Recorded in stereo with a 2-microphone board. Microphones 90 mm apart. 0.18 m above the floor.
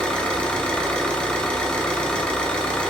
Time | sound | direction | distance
0.0 | an engine running | 10° left (ahead or behind) | 0.7 m